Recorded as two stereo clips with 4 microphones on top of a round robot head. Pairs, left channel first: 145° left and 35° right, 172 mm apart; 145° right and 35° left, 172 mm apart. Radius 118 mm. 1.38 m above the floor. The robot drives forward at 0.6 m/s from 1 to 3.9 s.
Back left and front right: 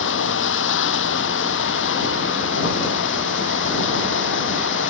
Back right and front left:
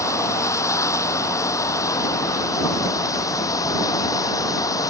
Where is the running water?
140° left; by 4.9 s 145° left.